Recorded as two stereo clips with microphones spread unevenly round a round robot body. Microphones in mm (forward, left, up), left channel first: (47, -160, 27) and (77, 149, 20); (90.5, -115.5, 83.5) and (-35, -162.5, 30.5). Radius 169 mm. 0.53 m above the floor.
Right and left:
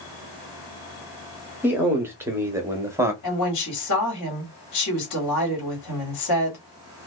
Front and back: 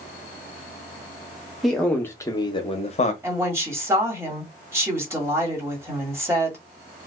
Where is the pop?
No pop in this recording.